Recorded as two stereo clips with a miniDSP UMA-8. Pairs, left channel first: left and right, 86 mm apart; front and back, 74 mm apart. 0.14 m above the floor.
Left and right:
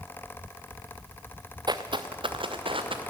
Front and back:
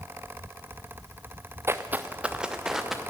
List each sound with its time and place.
1.7 s footsteps: 125° right, 0.8 m; by 3.0 s 95° right, 1.6 m